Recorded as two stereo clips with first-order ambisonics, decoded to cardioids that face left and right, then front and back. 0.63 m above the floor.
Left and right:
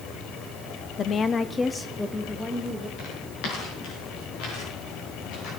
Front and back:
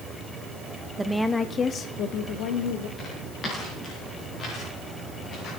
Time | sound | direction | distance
1.0 | a woman speaking | 115° left | 0.6 m
3.0 | footsteps | 70° left | 6.5 m